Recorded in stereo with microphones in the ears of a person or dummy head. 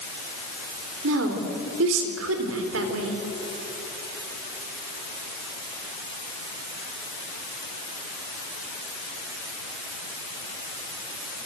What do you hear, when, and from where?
1.0 s a woman speaking: 85° right, 4 m